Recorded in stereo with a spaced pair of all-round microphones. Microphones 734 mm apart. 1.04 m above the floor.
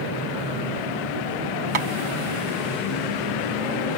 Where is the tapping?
45° right (ahead or behind), 0.7 m.